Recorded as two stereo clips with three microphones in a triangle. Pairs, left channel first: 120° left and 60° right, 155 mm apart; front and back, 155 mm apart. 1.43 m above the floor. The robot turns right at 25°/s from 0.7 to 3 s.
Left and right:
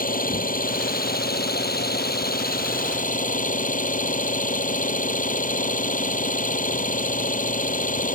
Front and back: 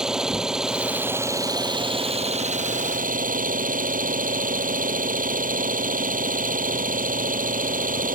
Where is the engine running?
95° left; by 8.2 s 150° left.